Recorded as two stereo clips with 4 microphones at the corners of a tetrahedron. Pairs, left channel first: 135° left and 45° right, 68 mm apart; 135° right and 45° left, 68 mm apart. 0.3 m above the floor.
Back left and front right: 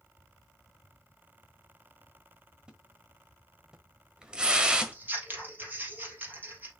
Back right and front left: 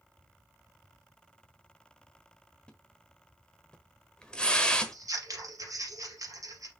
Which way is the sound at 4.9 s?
15° left.